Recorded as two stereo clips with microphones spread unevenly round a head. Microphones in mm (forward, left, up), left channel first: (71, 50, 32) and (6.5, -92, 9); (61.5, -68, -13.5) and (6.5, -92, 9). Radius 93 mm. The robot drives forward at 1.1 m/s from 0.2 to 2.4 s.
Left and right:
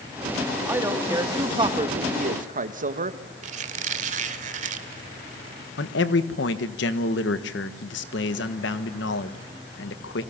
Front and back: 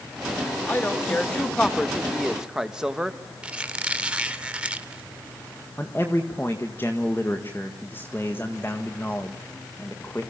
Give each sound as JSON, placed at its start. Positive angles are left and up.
{"t": 0.7, "sound": "a man speaking", "azimuth_deg": -35, "distance_m": 3.0}
{"t": 3.4, "sound": "a squeak", "azimuth_deg": -150, "distance_m": 1.2}
{"t": 5.8, "sound": "a man speaking", "azimuth_deg": 95, "distance_m": 1.7}